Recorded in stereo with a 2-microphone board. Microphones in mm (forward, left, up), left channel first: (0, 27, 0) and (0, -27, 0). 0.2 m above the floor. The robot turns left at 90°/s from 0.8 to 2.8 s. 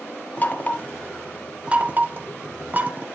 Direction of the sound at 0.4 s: 30° left (ahead or behind).